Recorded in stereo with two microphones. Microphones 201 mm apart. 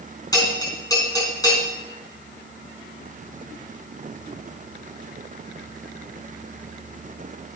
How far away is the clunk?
No clunk in this recording.